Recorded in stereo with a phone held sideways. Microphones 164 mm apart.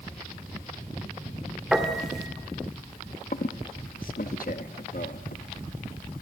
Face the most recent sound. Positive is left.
turn(degrees=60)  # may be behind; listen again after turning